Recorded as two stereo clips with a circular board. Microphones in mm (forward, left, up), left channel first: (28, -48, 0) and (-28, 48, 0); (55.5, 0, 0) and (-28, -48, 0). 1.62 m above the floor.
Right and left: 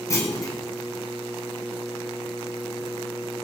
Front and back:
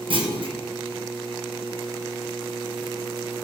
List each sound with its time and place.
0.1 s a clunk: 120° right, 1.9 m